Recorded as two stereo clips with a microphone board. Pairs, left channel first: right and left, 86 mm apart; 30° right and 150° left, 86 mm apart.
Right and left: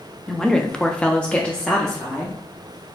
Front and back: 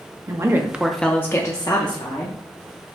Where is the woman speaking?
175° right, 0.7 m; by 2.4 s 10° right, 1.0 m.